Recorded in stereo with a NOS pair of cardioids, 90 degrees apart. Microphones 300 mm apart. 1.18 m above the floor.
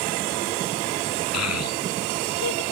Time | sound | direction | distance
1.3 | a child speaking | 60° left | ?